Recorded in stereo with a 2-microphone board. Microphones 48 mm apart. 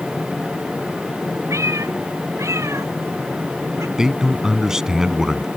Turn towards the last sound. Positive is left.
turn(degrees=-10)  # may be behind; listen again after turning